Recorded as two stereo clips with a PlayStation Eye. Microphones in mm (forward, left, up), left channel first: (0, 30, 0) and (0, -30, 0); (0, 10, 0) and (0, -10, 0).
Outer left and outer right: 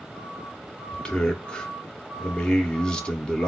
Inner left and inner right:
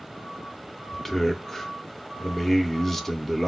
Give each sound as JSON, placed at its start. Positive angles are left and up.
{"t": 0.9, "sound": "a man speaking", "side_deg": 15, "distance_m": 0.6}